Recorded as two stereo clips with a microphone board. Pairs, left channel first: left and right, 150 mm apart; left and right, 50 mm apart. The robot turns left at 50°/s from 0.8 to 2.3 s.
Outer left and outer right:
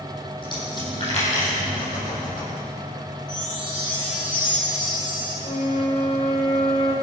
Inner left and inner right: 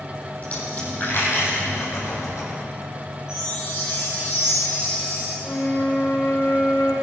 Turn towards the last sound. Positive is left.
turn(degrees=55)  # may be behind; listen again after turning